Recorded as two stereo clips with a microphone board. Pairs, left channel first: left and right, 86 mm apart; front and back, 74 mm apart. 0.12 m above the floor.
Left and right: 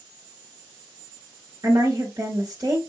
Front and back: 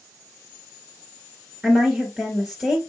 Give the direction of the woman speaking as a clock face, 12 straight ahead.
4 o'clock.